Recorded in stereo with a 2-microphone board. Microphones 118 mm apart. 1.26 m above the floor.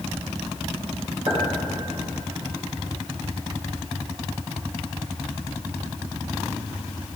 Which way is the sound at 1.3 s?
45° right (ahead or behind).